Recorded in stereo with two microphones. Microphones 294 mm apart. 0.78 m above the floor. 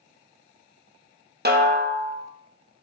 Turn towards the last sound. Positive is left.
turn(degrees=-35)  # may be behind; listen again after turning